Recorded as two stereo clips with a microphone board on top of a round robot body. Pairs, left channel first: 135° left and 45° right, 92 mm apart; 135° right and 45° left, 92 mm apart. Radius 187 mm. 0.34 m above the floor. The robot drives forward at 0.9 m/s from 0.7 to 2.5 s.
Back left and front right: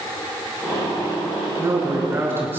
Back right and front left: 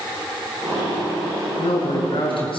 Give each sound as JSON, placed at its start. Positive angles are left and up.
{"t": 1.6, "sound": "a man speaking", "azimuth_deg": -105, "distance_m": 7.0}